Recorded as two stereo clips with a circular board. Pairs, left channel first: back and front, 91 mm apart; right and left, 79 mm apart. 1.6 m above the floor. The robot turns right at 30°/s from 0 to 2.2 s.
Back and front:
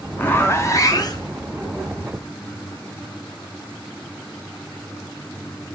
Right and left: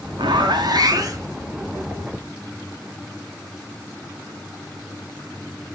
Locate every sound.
0.2 s a zipper: 110° left, 1.0 m; by 1.3 s 140° left, 1.0 m